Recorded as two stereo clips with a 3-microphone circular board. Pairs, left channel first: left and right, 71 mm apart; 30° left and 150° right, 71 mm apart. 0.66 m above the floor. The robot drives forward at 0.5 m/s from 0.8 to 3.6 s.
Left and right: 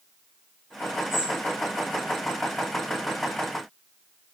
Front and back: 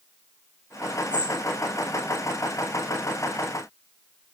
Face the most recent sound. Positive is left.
turn(degrees=145)